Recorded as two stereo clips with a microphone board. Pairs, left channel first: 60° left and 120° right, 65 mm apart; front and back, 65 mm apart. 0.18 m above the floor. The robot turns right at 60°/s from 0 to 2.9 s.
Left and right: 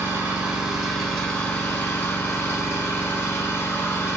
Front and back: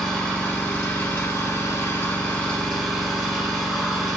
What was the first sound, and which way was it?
An engine running, 90° right.